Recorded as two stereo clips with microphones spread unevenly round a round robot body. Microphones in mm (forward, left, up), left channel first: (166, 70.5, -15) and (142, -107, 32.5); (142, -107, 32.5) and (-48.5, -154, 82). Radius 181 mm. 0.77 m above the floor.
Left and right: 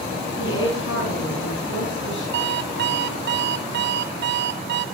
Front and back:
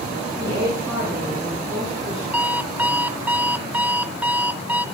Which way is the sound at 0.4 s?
105° left.